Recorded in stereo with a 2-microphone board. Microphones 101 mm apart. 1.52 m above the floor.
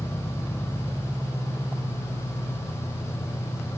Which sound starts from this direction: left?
An engine running, at 0.0 s.